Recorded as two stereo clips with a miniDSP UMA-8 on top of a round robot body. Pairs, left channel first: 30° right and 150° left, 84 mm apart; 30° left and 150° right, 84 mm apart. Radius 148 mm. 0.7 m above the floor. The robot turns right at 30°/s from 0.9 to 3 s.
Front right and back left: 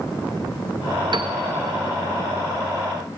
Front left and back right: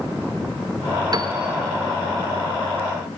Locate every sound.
1.1 s a piano: 170° left, 0.6 m; by 1.3 s straight behind, 0.6 m